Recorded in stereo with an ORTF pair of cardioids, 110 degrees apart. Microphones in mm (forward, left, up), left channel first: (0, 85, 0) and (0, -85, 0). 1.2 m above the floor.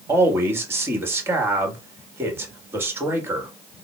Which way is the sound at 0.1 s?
15° right.